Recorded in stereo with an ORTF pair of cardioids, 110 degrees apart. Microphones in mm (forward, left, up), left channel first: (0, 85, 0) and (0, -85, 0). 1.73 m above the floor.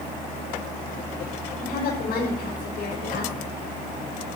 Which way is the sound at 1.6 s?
70° left.